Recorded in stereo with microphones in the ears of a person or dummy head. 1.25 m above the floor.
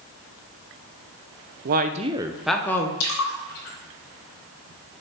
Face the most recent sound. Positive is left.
turn(degrees=75)  # may be behind; listen again after turning